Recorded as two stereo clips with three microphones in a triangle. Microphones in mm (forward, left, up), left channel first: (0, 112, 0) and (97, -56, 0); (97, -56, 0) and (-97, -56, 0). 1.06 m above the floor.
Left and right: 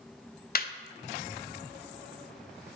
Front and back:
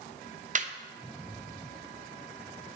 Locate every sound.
0.6 s laughter: 140° left, 0.5 m